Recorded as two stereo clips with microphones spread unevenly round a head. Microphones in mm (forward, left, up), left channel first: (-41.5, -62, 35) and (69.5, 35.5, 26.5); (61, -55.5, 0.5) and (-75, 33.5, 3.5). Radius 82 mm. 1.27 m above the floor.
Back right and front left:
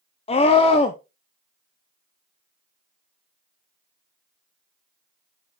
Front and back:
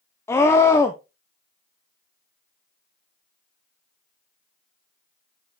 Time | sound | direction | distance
0.3 | a scream | 105° right | 0.7 m